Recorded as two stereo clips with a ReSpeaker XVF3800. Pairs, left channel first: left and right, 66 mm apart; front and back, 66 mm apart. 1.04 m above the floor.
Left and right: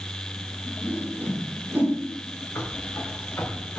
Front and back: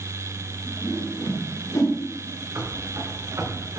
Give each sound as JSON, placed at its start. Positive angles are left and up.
{"t": 0.8, "sound": "a whoosh", "azimuth_deg": -30, "distance_m": 3.0}
{"t": 2.5, "sound": "running footsteps", "azimuth_deg": 150, "distance_m": 3.5}